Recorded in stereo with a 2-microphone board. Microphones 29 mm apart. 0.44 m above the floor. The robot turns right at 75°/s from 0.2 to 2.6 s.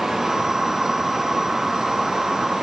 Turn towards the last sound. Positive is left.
No sound to turn to.